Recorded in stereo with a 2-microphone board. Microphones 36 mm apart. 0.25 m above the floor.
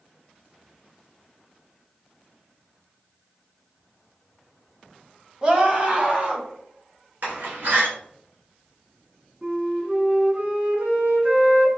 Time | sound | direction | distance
5.4 | a scream | 30° right (ahead or behind) | 1.2 m
7.2 | a door slam | 60° right (ahead or behind) | 2.5 m
9.4 | a flute | 40° right (ahead or behind) | 1.6 m